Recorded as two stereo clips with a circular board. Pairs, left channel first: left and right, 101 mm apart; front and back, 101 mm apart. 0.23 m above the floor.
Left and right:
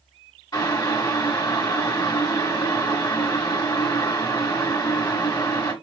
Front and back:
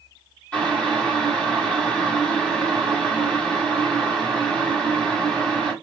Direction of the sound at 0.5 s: 70° left.